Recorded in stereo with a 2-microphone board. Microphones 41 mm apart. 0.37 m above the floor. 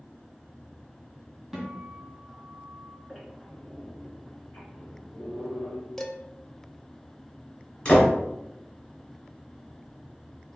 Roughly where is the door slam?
Left.